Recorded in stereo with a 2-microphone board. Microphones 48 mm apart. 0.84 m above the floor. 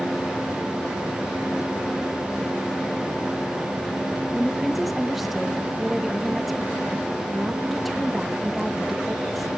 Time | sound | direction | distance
4.3 | a woman speaking | 5° right (ahead or behind) | 0.8 m